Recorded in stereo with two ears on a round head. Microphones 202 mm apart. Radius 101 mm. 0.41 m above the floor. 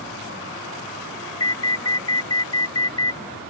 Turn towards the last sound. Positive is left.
turn(degrees=20)  # may be behind; listen again after turning